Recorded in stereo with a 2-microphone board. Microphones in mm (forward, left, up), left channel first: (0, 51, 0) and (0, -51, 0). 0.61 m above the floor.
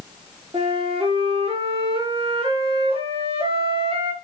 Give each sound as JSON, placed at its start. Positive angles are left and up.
{"t": 0.5, "sound": "a flute", "side_deg": -65, "distance_m": 6.0}